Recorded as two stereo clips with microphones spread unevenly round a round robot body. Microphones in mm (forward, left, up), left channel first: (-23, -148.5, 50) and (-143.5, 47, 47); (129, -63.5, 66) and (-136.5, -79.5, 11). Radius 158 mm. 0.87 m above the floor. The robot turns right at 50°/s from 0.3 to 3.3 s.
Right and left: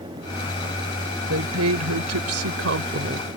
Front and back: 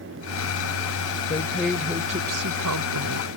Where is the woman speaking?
75° left; by 3.3 s 175° left.